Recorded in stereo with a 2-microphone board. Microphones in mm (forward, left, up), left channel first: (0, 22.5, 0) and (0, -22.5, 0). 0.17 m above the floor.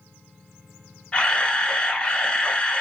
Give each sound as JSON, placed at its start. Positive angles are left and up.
{"t": 1.1, "sound": "a camera shutter", "side_deg": 20, "distance_m": 1.0}